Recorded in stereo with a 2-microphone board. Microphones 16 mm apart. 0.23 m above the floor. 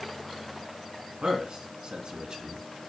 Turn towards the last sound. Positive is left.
turn(degrees=-55)  # may be behind; listen again after turning